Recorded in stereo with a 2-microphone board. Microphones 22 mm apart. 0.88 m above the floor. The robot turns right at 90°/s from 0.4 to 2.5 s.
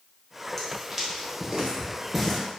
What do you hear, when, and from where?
0.6 s footsteps: 15° left (ahead or behind), 1.4 m; by 2.4 s 10° left (ahead or behind), 0.8 m